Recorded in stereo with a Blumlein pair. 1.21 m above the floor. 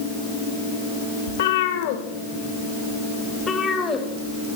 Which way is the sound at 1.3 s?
60° left.